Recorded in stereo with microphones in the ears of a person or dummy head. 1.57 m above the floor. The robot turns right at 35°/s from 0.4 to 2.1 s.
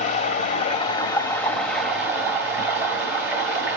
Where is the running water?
130° left, 2 m; by 3.8 s 175° right, 2 m.